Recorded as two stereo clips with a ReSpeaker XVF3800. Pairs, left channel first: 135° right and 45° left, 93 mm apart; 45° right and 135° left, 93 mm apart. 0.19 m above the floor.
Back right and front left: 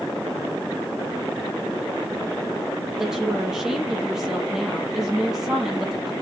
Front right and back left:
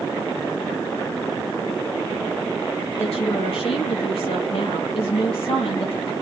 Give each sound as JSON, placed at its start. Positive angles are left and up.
{"t": 3.0, "sound": "a woman speaking", "azimuth_deg": -40, "distance_m": 4.5}